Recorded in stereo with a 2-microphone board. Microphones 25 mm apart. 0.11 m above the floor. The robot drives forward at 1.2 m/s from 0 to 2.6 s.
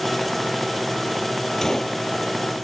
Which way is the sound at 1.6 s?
15° left (ahead or behind).